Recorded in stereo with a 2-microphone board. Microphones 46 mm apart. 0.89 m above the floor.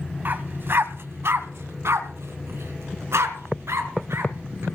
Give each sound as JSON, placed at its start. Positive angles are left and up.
{"t": 0.2, "sound": "a dog barking", "side_deg": -45, "distance_m": 1.2}